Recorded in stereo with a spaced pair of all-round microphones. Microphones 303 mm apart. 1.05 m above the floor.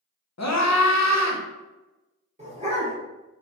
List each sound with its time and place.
0.4 s a scream: 60° left (ahead or behind), 0.6 m
2.4 s a dog barking: 20° right (ahead or behind), 0.8 m